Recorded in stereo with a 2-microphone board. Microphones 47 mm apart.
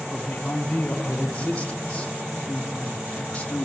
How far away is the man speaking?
About 1.2 m.